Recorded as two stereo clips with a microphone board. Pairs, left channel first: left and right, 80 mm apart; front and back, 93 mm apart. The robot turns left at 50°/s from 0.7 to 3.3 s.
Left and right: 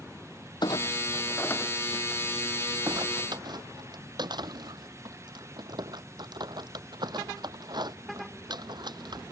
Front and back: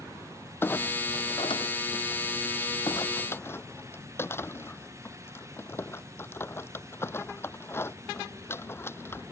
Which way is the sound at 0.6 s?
65° left.